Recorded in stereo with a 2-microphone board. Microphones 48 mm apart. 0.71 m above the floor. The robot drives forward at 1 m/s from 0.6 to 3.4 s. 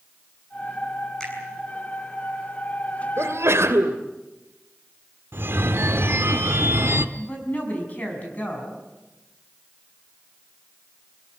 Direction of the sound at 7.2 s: 35° left (ahead or behind).